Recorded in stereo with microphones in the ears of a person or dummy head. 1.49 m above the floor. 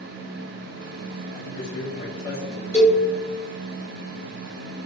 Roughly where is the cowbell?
Centre.